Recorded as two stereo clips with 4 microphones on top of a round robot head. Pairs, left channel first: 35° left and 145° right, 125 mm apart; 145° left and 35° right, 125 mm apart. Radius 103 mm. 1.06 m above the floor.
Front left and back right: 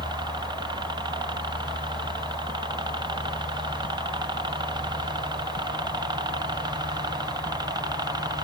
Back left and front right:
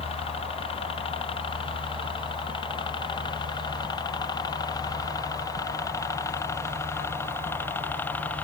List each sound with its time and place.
0.0 s a helicopter: 170° left; by 8.4 s 150° right